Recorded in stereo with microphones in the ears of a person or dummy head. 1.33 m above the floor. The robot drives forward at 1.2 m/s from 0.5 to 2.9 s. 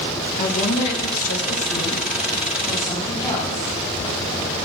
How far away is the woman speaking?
About 1.4 m.